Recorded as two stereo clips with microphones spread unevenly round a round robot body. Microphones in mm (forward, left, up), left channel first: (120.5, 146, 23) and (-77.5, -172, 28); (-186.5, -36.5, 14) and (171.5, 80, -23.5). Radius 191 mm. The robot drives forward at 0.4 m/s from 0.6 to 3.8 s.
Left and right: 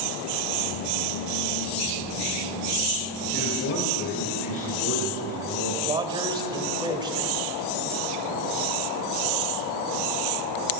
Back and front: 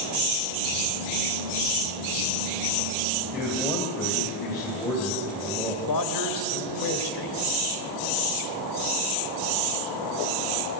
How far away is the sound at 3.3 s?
About 3 m.